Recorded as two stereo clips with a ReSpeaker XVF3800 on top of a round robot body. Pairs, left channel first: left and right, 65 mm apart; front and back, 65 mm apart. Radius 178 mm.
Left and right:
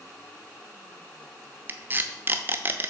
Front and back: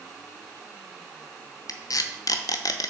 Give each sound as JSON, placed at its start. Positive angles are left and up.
{"t": 1.7, "sound": "tape being pulled", "azimuth_deg": -30, "distance_m": 0.8}